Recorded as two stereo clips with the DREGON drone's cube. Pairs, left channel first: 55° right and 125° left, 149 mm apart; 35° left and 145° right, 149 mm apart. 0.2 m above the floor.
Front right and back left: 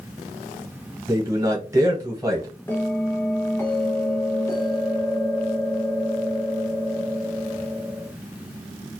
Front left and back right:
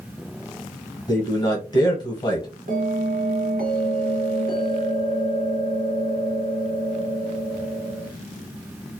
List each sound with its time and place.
1.1 s a man speaking: 75° left, 1.2 m
2.7 s a bell: 130° right, 0.7 m